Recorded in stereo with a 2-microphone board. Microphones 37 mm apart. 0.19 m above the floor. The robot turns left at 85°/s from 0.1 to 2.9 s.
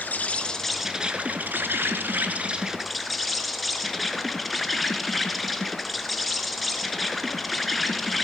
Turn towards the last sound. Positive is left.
turn(degrees=180)